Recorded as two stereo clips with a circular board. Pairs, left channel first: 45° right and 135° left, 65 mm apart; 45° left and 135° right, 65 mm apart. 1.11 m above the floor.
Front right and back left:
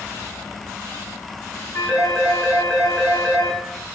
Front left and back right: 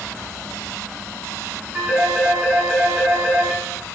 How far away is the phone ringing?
About 9 m.